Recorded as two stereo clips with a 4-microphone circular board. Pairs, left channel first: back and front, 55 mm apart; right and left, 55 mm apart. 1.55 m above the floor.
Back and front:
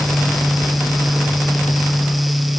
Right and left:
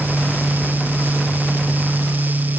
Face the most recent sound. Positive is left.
No sound to turn to.